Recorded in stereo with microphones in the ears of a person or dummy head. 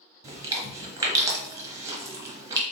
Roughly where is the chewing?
Centre.